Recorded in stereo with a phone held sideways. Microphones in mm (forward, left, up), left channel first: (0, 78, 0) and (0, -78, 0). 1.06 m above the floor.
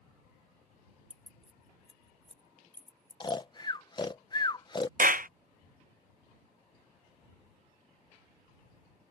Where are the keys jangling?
50° right (ahead or behind); by 3.4 s 25° right (ahead or behind).